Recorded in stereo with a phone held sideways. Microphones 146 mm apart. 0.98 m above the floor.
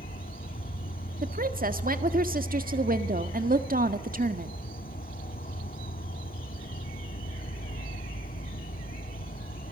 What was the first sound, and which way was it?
An insect, 85° left.